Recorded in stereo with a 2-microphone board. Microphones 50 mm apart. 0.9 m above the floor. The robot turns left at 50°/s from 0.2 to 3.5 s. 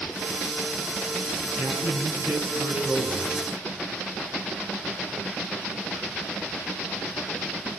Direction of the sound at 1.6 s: 75° right.